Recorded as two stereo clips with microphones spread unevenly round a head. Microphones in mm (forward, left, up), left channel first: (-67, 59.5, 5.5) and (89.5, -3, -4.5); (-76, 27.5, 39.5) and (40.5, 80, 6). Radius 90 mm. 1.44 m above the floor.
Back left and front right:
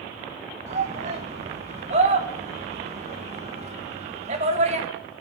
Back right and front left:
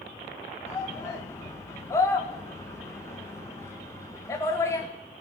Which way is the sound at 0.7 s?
80° right.